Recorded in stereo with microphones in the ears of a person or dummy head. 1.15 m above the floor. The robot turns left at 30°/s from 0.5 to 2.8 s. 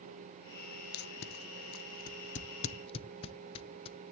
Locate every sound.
0.9 s tape being pulled: 55° left (ahead or behind), 0.7 m; by 4.1 s 30° left (ahead or behind), 0.7 m